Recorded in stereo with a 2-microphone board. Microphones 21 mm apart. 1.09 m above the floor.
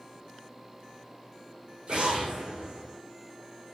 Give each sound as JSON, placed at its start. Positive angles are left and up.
{"t": 1.9, "sound": "an explosion", "side_deg": -45, "distance_m": 8.0}